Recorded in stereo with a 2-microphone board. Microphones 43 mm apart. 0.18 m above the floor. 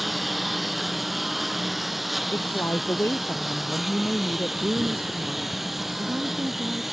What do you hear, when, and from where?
0.0 s a lawn mower: centre (ahead or behind); by 6.9 s 5° right (ahead or behind)
2.3 s a woman speaking: 75° left (ahead or behind)
4.6 s a woman speaking: 45° right (ahead or behind)